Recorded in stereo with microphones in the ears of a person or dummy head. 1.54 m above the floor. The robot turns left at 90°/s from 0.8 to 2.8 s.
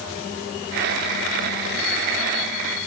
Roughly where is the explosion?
I don't hear an explosion.